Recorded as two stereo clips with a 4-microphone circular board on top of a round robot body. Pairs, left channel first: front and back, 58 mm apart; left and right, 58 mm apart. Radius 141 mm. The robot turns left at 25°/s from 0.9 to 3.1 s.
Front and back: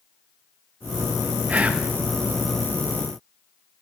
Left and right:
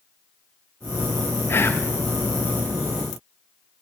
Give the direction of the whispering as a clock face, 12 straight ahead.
8 o'clock.